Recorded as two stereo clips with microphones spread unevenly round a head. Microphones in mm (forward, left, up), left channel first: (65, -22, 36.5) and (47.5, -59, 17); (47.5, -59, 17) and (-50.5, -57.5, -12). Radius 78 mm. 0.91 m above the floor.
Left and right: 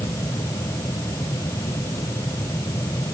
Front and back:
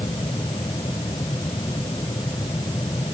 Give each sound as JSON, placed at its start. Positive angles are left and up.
{"t": 0.0, "sound": "a fan", "azimuth_deg": 65}